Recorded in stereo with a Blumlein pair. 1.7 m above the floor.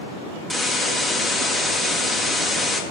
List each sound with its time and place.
0.5 s a hiss: 5° left, 1.8 m